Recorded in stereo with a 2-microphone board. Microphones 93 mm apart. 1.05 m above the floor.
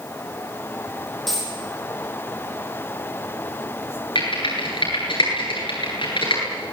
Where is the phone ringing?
No phone ringing in this recording.